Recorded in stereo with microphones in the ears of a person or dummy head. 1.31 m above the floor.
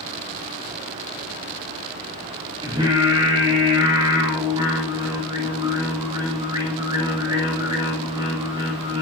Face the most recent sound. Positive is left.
turn(degrees=-30)  # may be behind; listen again after turning